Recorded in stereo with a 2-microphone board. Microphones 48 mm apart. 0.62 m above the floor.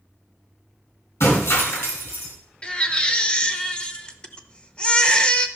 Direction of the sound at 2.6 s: 20° left (ahead or behind).